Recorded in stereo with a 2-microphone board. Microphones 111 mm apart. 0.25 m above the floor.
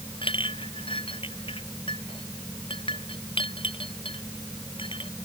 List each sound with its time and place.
0.2 s a clink: 50° left (ahead or behind)